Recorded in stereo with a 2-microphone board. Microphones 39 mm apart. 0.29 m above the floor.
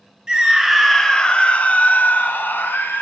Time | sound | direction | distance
0.3 | a scream | 15° right (ahead or behind) | 1.0 m